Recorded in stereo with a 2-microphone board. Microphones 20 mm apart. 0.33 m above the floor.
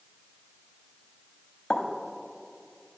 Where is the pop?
50° left (ahead or behind), 0.8 m.